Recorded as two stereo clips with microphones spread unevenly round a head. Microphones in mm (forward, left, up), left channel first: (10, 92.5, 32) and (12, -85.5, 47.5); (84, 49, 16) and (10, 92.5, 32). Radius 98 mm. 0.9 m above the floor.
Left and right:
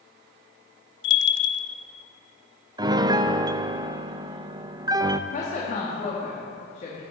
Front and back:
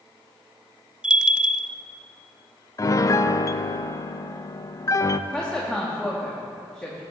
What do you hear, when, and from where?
1.0 s a bell: 70° left, 0.6 m
2.8 s a piano: 25° right, 0.5 m
5.3 s a woman speaking: 50° left, 2 m